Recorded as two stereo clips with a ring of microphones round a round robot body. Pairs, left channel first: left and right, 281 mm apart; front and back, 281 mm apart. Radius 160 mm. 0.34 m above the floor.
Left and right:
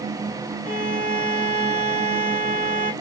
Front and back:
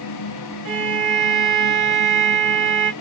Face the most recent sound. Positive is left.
turn(degrees=145)